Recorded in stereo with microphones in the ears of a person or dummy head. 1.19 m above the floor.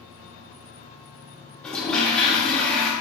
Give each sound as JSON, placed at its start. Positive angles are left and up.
{"t": 1.6, "sound": "a toilet flushing", "side_deg": 5, "distance_m": 1.2}